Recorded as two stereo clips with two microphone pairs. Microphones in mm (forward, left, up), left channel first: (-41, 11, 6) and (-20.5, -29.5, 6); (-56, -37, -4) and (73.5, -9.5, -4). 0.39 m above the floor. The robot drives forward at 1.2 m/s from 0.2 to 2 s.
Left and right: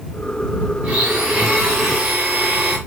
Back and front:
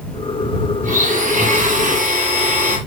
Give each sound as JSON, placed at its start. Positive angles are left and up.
{"t": 0.8, "sound": "a blender", "azimuth_deg": 0, "distance_m": 6.0}